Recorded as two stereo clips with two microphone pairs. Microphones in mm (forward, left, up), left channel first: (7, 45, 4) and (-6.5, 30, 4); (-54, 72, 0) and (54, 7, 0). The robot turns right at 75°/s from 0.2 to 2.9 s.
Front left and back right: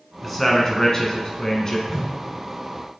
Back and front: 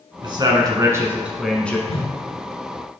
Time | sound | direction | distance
0.2 | a man speaking | 35° right | 1.4 m
1.9 | a whoosh | 145° left | 1.5 m